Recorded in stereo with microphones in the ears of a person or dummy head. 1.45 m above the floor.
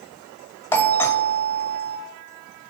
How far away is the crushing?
No crushing in this recording.